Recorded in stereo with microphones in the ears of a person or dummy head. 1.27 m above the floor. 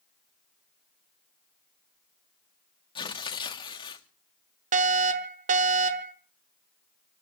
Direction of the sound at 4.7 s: 40° right (ahead or behind).